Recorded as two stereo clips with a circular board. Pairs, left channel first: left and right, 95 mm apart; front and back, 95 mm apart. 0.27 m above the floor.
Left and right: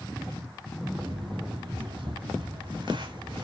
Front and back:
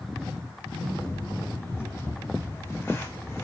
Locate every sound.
0.9 s footsteps: 65° right, 9 m